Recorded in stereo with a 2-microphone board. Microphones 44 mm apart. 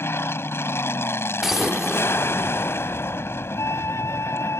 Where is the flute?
75° left (ahead or behind).